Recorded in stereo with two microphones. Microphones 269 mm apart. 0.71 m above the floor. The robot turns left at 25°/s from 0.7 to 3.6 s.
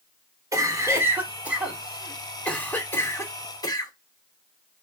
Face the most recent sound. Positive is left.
turn(degrees=15)  # may be behind; listen again after turning